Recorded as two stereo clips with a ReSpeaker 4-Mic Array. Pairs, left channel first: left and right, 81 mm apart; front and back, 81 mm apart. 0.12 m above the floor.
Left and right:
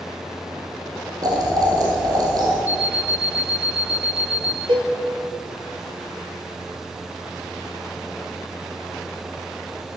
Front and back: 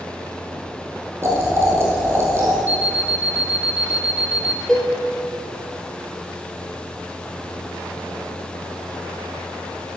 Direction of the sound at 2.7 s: 45° left.